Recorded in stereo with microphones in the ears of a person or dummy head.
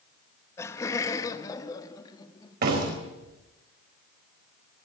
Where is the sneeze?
I don't hear a sneeze.